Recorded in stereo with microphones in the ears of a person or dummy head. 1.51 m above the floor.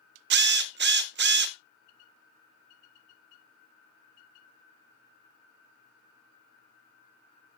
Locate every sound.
0.3 s a drill: 55° right (ahead or behind), 0.5 m